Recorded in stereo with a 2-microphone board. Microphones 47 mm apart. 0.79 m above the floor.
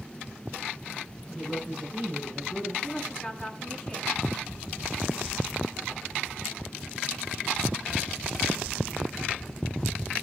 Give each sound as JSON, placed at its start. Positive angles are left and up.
{"t": 1.3, "sound": "a woman speaking", "side_deg": -10, "distance_m": 8.0}
{"t": 2.8, "sound": "a woman speaking", "side_deg": 5, "distance_m": 7.5}